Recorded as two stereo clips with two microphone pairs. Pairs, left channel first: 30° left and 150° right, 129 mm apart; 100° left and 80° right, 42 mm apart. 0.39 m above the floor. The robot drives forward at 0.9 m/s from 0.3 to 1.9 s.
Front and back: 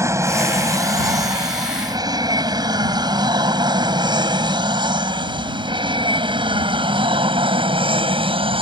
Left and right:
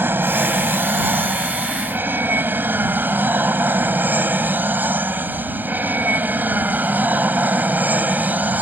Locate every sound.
0.0 s an aircraft: 85° right; by 8.6 s 115° right